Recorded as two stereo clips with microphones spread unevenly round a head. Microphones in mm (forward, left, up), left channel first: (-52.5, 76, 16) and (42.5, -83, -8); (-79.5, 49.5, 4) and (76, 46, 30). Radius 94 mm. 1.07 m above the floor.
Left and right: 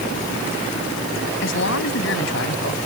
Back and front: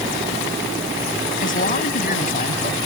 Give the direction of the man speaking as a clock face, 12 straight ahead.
7 o'clock.